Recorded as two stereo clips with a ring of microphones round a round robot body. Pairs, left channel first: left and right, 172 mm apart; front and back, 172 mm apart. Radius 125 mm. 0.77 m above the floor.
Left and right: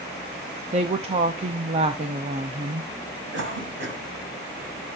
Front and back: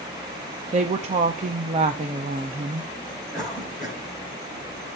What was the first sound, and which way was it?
A woman speaking, 135° right.